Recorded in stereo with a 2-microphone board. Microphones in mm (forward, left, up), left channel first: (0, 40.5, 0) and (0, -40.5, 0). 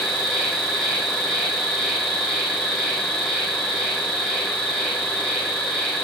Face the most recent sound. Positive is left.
turn(degrees=5)  # may be behind; listen again after turning